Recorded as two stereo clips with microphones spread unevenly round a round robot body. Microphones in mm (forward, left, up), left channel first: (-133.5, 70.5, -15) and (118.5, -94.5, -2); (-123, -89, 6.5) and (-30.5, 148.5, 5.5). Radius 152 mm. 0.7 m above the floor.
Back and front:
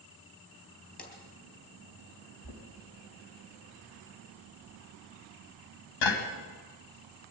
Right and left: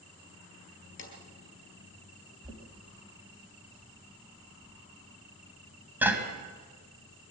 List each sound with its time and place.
1.0 s a drawer: 150° right, 4 m
2.4 s knocking: 150° left, 3 m